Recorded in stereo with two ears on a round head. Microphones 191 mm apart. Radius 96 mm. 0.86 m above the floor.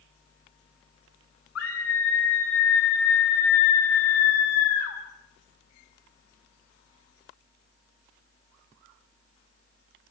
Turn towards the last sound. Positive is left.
turn(degrees=75)  # may be behind; listen again after turning